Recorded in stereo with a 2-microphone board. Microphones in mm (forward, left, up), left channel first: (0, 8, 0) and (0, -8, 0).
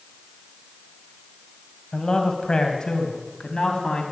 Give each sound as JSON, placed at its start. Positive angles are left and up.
{"t": 1.9, "sound": "a man speaking", "side_deg": 55, "distance_m": 2.5}